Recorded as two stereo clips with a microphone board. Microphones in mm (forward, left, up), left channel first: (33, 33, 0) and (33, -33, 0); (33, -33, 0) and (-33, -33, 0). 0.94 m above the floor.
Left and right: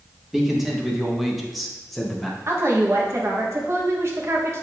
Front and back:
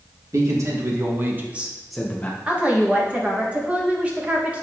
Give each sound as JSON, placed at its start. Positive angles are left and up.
{"t": 0.3, "sound": "a man speaking", "azimuth_deg": -175, "distance_m": 1.3}
{"t": 2.5, "sound": "a woman speaking", "azimuth_deg": -120, "distance_m": 1.2}